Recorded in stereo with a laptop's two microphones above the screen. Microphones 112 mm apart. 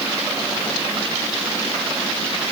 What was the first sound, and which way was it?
Only background noise.